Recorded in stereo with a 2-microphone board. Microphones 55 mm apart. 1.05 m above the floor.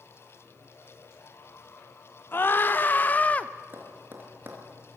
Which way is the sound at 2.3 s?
40° left (ahead or behind).